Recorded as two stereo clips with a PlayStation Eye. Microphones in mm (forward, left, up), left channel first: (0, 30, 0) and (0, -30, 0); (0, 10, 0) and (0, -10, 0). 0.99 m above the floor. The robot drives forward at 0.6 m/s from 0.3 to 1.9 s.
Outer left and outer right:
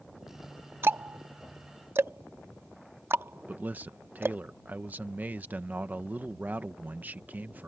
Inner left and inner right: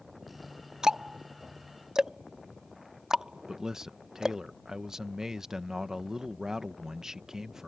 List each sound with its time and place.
0.8 s ticking: 40° right (ahead or behind)
3.5 s a man speaking: 30° right (ahead or behind)